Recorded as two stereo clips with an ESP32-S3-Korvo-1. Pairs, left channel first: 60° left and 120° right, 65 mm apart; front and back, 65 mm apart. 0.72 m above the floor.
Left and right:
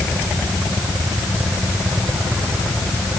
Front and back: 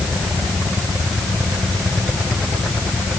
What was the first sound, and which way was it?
Only background noise.